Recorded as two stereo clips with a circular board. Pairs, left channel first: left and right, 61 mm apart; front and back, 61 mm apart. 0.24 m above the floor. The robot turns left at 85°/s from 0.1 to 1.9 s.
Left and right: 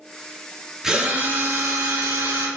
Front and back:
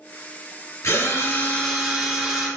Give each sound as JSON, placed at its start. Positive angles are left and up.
{"t": 0.8, "sound": "a drill", "azimuth_deg": -10, "distance_m": 3.0}